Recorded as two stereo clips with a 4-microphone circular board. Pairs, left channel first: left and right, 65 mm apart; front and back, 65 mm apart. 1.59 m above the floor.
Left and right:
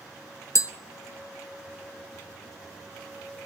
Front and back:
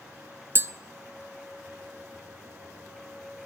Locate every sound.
0.6 s tapping: 130° left, 0.8 m